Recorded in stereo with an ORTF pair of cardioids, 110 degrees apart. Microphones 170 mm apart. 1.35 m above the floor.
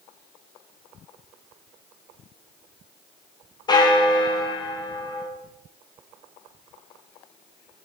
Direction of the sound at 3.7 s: 25° left.